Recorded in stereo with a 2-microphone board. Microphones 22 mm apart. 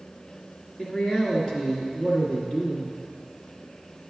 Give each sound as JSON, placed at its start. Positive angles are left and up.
{"t": 0.8, "sound": "a man speaking", "side_deg": 40, "distance_m": 1.7}